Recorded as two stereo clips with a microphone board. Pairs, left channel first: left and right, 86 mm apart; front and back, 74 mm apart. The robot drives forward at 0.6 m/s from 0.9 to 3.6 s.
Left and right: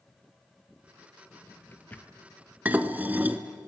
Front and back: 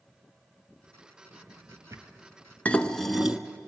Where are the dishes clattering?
45° right, 0.8 m; by 3.4 s 115° right, 0.8 m.